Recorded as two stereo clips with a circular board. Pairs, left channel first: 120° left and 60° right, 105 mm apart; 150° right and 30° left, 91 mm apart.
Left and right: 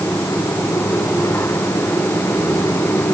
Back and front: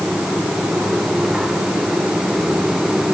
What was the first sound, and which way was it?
Only background noise.